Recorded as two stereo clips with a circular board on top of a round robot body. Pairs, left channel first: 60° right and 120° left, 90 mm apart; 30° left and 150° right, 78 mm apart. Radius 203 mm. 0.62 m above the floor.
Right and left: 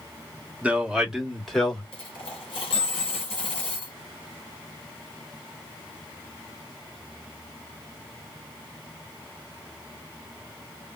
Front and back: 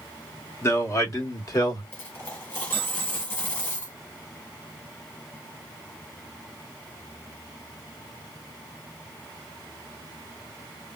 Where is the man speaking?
55° left, 1.4 m; by 1.8 s 25° left, 1.8 m.